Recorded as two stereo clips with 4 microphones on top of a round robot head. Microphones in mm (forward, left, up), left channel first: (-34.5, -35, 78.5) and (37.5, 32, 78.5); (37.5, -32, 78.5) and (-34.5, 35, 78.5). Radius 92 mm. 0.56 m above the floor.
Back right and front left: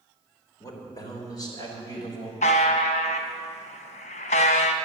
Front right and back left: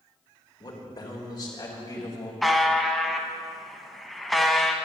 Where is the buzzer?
130° right, 0.7 m.